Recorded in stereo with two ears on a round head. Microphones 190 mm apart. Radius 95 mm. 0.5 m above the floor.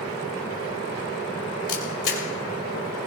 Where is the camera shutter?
55° left (ahead or behind), 3 m.